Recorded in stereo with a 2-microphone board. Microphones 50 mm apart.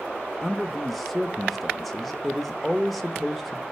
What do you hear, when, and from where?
0.4 s a man speaking: centre (ahead or behind), 0.8 m